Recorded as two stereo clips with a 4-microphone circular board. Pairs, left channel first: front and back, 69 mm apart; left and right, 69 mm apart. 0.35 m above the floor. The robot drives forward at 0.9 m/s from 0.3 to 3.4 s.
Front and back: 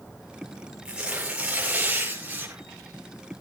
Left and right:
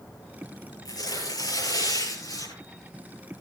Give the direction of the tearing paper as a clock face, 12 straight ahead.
9 o'clock.